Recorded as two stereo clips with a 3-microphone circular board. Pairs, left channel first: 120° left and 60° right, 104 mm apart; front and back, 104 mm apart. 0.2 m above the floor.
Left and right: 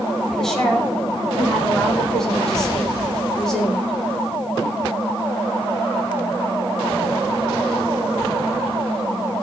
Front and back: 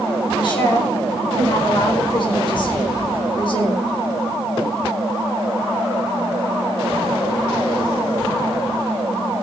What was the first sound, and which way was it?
A woman speaking, 35° left.